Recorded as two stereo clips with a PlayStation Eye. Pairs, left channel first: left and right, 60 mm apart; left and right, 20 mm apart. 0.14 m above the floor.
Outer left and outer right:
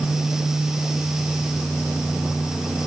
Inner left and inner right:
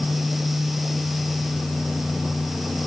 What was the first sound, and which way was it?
Only background noise.